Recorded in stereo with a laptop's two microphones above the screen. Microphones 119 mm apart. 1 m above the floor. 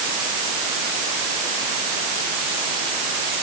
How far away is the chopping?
I don't hear chopping.